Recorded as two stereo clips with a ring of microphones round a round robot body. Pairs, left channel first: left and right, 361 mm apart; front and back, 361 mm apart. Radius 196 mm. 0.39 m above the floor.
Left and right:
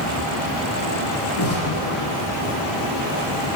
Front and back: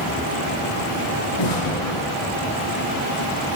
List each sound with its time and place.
1.4 s an explosion: 30° left, 3.5 m